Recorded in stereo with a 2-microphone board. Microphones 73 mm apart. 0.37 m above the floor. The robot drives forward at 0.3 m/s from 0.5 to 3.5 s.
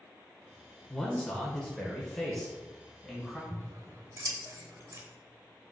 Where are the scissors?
45° right (ahead or behind), 0.7 m.